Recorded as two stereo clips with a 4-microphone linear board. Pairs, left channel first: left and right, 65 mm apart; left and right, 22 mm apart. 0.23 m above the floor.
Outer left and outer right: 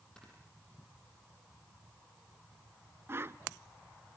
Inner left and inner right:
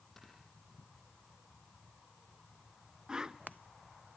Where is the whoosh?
40° right (ahead or behind), 0.6 m.